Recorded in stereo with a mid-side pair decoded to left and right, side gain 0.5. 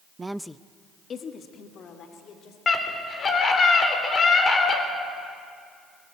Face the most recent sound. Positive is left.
turn(degrees=40)